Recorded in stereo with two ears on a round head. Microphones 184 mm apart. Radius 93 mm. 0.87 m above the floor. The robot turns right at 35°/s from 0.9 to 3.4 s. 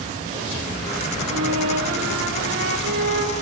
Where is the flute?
105° right, 0.8 m; by 3.3 s 35° right, 0.8 m.